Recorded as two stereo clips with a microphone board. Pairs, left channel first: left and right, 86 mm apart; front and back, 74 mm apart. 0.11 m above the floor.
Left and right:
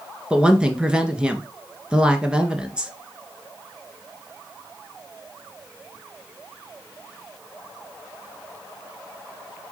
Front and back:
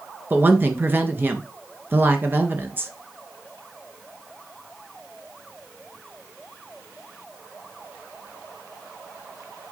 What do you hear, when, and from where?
0.3 s a woman speaking: 160° right, 1.7 m